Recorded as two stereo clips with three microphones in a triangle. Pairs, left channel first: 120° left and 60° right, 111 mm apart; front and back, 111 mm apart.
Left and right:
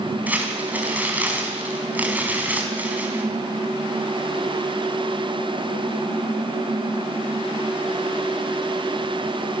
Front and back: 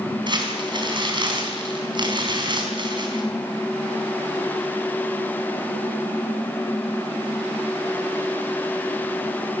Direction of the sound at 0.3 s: 135° right.